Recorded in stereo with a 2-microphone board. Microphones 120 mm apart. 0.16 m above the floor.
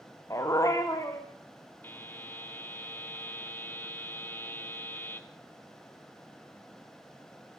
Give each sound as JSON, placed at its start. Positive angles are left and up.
{"t": 0.3, "sound": "a dog barking", "side_deg": 25, "distance_m": 3.5}
{"t": 1.8, "sound": "a buzzer", "side_deg": 15, "distance_m": 1.6}